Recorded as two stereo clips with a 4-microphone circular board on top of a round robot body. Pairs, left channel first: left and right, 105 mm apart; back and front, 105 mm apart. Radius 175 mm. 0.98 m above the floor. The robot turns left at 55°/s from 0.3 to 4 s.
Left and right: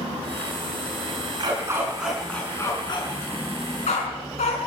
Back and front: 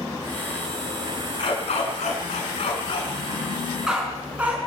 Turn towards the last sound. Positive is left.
turn(degrees=80)